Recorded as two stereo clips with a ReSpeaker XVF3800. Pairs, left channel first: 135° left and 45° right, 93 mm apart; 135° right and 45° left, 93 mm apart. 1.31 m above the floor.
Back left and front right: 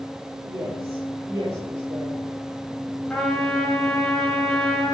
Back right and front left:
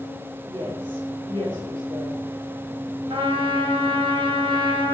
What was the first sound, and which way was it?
A woman speaking, 10° left.